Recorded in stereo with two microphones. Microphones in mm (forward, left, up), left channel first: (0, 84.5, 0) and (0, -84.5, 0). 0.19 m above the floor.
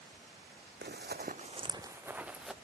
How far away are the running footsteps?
About 0.7 m.